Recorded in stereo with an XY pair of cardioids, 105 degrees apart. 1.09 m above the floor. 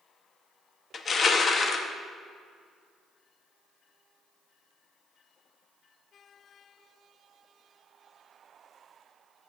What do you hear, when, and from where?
0.9 s crushing: 45° left, 0.8 m